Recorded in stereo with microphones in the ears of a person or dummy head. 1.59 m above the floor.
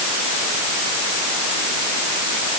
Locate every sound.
Only background noise.